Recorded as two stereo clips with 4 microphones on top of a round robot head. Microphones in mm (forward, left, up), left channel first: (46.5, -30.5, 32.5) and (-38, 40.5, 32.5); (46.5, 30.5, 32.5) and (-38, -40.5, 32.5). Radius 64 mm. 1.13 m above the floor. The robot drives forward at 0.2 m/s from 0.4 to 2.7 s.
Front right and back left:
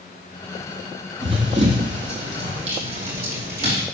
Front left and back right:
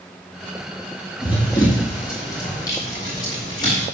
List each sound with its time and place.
1.2 s running footsteps: 100° left, 2 m